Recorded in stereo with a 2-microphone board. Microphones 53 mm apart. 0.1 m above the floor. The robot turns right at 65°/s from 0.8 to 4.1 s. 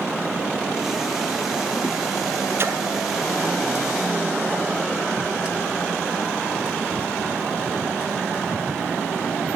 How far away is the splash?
About 1.6 m.